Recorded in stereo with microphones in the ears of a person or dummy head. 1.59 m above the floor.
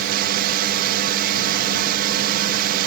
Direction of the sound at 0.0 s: 55° right (ahead or behind).